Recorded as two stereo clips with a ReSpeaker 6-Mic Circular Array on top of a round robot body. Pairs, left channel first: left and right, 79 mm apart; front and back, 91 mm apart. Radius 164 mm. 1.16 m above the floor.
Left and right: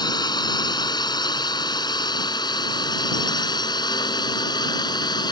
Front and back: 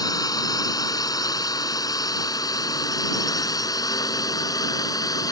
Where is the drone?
50° left; by 5.3 s 55° left.